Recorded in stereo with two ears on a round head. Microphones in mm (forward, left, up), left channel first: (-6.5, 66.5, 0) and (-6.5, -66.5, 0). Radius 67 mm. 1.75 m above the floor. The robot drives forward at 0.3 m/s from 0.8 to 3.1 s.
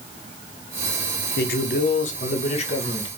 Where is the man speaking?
80° left, 0.6 m; by 3.1 s 40° left (ahead or behind), 0.8 m.